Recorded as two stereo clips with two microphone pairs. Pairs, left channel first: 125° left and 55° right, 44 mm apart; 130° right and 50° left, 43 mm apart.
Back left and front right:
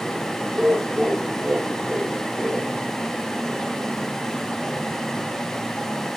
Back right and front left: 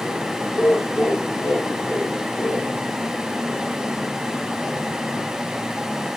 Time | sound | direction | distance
0.5 | laughter | 120° right | 5 m